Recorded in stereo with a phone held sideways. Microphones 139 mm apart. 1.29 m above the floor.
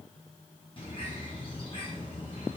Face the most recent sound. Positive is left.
turn(degrees=45)  # may be behind; listen again after turning